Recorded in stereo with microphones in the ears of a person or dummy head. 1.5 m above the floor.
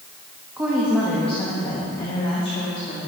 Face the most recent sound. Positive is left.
turn(degrees=45)  # may be behind; listen again after turning